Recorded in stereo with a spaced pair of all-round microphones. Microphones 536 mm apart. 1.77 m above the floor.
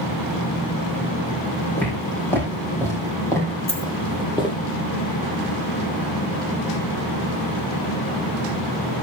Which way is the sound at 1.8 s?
5° left (ahead or behind).